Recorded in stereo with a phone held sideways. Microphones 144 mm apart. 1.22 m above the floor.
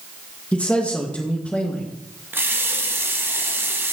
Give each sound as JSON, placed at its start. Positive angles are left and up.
{"t": 0.5, "sound": "a man speaking", "side_deg": 10, "distance_m": 1.3}
{"t": 2.3, "sound": "a running tap", "side_deg": -15, "distance_m": 0.9}